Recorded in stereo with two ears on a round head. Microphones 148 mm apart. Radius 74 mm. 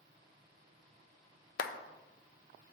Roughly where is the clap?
Left.